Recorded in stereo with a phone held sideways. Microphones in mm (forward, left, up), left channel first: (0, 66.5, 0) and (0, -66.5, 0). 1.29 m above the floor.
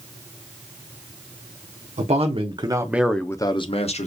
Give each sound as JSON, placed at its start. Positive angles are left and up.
{"t": 2.0, "sound": "a man speaking", "side_deg": -55, "distance_m": 1.1}